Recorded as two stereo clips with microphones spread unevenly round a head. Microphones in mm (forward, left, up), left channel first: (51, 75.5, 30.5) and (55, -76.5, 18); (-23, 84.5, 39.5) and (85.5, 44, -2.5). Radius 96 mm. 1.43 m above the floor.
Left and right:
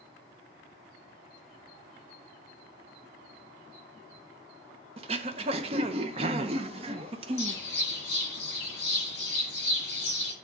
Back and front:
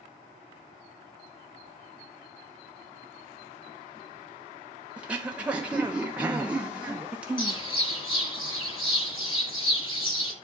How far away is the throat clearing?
About 0.6 m.